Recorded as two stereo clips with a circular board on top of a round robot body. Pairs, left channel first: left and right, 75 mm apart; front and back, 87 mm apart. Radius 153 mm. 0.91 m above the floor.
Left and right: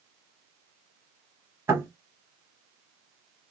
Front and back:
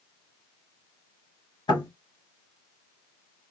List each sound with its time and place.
1.7 s knocking: 35° right, 2.5 m